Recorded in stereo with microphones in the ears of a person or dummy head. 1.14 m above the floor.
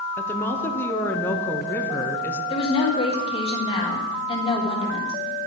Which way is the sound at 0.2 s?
10° left (ahead or behind).